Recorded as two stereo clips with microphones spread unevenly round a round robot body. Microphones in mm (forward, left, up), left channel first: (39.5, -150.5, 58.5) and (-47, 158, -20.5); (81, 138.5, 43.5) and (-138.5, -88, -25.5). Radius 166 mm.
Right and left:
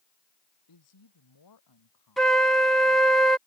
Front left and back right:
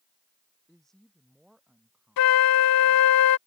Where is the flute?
25° left.